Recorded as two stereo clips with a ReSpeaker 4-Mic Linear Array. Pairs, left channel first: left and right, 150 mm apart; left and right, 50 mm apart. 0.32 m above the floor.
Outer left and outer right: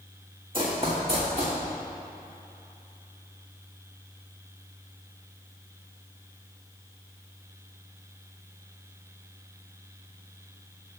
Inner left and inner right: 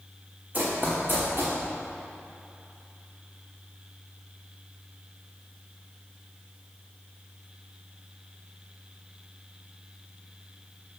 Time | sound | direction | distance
0.5 | running footsteps | 35° right (ahead or behind) | 1.6 m